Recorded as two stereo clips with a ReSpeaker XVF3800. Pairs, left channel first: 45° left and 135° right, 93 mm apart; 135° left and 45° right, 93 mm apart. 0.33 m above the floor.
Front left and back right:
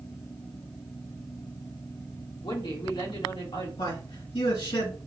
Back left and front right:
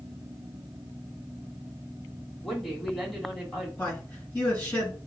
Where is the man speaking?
60° left, 3 m.